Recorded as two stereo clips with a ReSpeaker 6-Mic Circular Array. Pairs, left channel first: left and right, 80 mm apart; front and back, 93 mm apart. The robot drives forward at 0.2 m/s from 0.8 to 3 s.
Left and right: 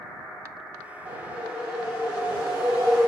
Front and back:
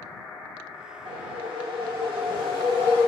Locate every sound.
1.1 s a whoosh: 160° right, 1.0 m; by 3.1 s 165° right, 1.4 m